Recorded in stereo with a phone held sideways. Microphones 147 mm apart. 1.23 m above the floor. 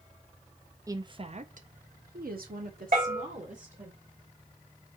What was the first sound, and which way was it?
A woman speaking, 20° right (ahead or behind).